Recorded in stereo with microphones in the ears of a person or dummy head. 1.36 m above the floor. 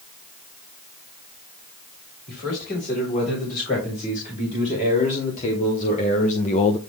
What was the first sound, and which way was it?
A man speaking, 45° left (ahead or behind).